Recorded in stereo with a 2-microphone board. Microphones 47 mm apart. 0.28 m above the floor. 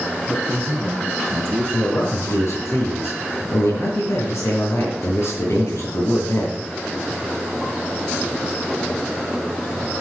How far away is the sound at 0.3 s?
About 2 m.